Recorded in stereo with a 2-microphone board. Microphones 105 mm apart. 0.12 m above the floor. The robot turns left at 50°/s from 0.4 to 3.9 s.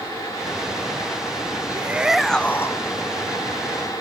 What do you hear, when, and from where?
1.7 s a shout: 155° right; by 2.8 s 150° left